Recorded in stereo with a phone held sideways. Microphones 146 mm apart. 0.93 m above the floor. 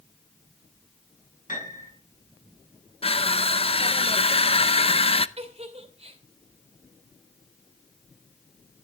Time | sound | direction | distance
1.5 | a piano | 65° left (ahead or behind) | 7.5 m
3.0 | crushing | 40° left (ahead or behind) | 0.6 m
5.4 | a giggle | 45° right (ahead or behind) | 2.5 m